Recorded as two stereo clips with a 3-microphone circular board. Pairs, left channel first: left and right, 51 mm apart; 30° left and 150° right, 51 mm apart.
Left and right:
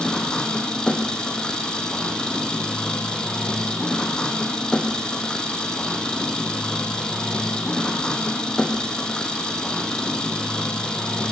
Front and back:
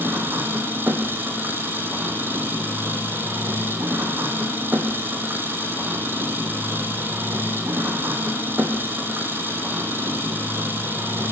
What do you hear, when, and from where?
0.0 s an engine running: 160° left, 3 m